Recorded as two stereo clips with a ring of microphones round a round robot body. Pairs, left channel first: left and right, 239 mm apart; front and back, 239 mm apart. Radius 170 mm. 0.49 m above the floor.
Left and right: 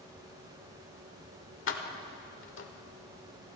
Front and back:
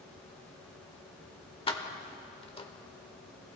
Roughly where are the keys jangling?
Ahead left.